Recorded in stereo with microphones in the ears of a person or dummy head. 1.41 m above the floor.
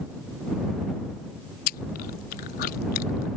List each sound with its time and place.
1.7 s chewing: 45° left (ahead or behind)